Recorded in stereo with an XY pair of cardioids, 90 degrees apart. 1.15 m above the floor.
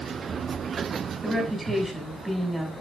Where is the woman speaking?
15° right, 8 m.